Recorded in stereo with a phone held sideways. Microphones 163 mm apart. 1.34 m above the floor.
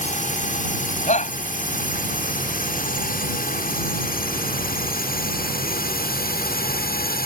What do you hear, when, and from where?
0.0 s a drone: 55° left (ahead or behind); by 7.3 s 75° left (ahead or behind)
1.1 s a shout: 50° left (ahead or behind)